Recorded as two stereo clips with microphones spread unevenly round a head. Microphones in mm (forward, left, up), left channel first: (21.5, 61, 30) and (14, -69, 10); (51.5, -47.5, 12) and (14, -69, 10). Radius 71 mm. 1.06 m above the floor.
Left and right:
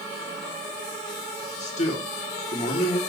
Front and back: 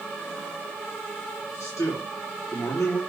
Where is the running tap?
No running tap in this recording.